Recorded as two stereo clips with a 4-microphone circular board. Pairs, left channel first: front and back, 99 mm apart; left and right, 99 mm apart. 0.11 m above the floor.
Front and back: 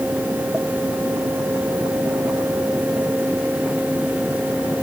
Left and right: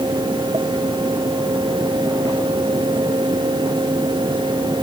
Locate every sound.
Only background noise.